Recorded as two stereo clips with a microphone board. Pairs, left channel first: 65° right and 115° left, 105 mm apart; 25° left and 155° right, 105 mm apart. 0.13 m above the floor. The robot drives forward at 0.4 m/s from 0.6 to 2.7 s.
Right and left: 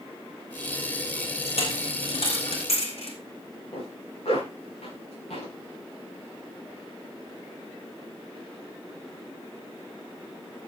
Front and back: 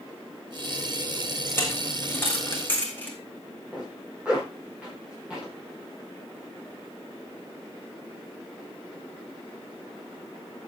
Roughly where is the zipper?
Right.